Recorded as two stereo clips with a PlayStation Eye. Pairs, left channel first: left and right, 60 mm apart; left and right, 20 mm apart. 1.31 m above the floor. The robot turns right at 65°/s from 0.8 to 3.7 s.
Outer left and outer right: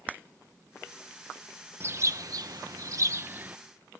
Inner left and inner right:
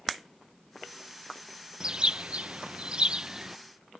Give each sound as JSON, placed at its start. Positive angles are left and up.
{"t": 1.8, "sound": "a bird", "azimuth_deg": -140}